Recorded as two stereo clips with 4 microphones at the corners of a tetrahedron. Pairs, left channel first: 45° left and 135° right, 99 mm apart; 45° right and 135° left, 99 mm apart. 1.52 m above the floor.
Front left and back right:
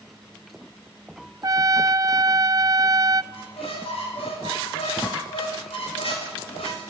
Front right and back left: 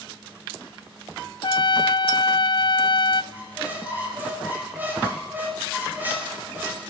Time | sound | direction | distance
1.4 | a trumpet | 80° right | 0.6 m
3.3 | a squeak | 65° left | 6 m